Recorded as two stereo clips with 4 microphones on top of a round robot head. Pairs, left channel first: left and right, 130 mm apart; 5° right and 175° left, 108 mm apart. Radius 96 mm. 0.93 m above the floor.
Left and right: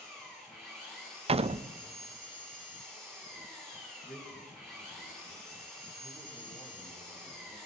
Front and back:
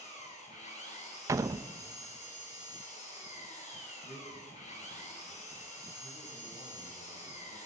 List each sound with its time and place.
0.0 s an engine running: straight ahead, 6.5 m
1.3 s a door slam: 125° right, 0.6 m
4.0 s a man speaking: 5° left, 9 m